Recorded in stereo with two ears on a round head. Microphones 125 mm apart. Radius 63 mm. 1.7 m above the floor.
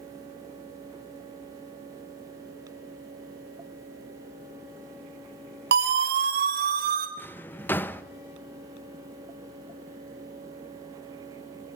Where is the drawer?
15° left (ahead or behind), 0.9 m.